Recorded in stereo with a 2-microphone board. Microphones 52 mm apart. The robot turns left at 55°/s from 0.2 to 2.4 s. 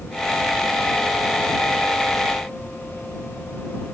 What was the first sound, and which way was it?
Only background noise.